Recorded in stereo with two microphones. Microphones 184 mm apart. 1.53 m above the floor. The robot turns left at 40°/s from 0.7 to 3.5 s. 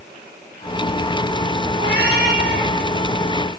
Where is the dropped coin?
No dropped coin in this recording.